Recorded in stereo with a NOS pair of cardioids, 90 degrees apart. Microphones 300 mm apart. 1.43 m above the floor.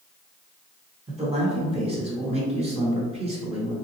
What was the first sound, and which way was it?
A man speaking, 20° right.